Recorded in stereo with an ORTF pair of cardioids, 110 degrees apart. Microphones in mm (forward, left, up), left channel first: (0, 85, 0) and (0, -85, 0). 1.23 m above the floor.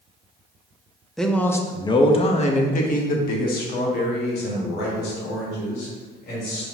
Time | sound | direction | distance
1.2 | a man speaking | straight ahead | 1.0 m